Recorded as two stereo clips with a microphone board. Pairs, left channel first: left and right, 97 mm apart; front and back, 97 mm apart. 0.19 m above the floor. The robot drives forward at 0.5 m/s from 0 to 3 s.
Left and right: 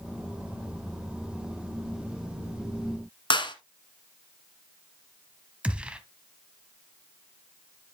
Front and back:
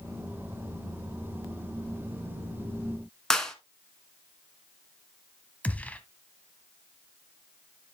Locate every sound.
3.3 s a clap: 85° left, 1.5 m
5.6 s a gunshot: 40° right, 0.9 m